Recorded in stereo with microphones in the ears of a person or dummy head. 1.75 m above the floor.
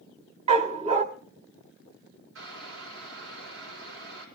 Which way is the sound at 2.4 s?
75° right (ahead or behind).